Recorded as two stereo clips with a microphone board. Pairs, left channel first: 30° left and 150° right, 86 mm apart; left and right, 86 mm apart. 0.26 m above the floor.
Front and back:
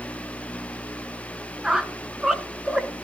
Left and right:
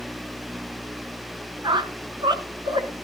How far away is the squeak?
About 1.1 m.